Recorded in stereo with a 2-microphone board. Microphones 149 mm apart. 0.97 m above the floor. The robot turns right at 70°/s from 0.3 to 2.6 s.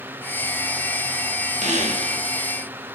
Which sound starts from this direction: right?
A squeak, at 1.6 s.